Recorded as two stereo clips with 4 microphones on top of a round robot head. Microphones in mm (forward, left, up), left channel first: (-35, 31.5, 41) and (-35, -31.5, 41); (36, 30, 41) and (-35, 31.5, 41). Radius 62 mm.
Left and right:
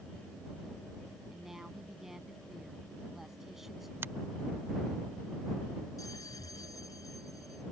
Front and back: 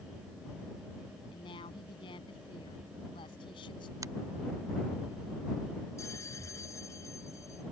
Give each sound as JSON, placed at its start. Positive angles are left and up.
{"t": 1.3, "sound": "a woman speaking", "azimuth_deg": -5}
{"t": 4.0, "sound": "a finger snap", "azimuth_deg": -140}
{"t": 6.0, "sound": "a bell", "azimuth_deg": 45}